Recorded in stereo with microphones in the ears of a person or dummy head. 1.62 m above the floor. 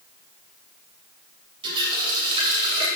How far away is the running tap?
About 2.5 m.